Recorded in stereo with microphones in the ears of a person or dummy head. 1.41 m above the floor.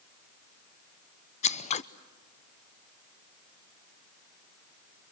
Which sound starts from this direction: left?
Scissors, at 1.4 s.